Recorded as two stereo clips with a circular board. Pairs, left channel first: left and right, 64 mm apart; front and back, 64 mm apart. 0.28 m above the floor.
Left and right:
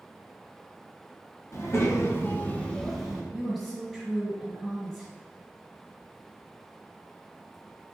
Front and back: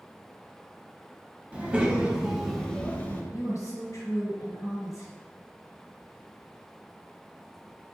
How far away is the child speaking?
About 0.9 m.